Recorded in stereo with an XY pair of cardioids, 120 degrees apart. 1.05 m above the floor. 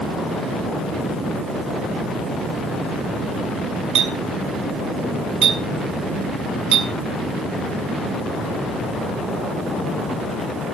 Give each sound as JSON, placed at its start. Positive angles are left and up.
{"t": 4.0, "sound": "a clink", "azimuth_deg": -65, "distance_m": 5.5}